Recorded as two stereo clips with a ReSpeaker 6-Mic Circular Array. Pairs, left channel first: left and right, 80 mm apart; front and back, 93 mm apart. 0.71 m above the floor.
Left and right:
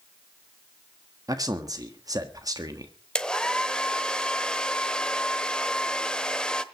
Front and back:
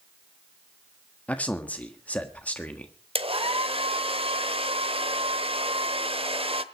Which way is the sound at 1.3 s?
70° right.